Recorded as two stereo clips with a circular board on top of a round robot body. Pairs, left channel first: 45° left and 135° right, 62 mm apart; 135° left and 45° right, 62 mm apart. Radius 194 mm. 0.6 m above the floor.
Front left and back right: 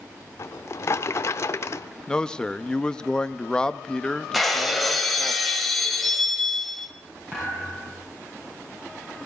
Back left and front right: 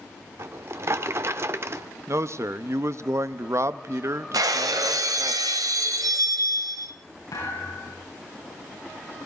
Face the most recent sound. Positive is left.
turn(degrees=160)